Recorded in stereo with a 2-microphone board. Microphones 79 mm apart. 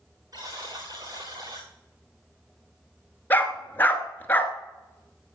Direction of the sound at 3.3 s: 25° left (ahead or behind).